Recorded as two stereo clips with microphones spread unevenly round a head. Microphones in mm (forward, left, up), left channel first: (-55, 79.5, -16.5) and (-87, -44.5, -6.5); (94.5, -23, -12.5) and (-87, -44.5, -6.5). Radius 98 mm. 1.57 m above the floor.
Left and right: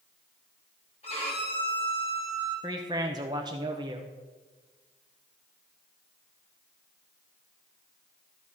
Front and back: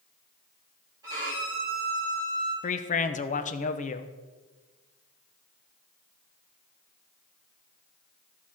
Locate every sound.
1.0 s a violin: 115° left, 3.5 m
2.6 s a man speaking: 40° right, 0.8 m